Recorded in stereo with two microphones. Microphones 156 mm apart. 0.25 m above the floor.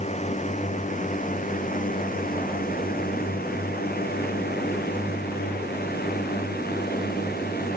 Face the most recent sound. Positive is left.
turn(degrees=80)